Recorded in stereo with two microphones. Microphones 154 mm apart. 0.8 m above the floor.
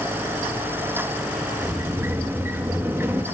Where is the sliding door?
15° right (ahead or behind), 1.3 m.